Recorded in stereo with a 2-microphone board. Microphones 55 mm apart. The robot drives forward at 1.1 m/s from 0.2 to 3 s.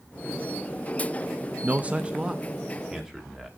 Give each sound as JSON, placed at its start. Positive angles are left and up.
{"t": 1.6, "sound": "a man speaking", "side_deg": -30, "distance_m": 0.5}